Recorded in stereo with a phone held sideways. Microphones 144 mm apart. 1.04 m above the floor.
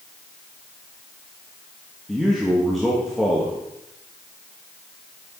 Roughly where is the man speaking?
Centre.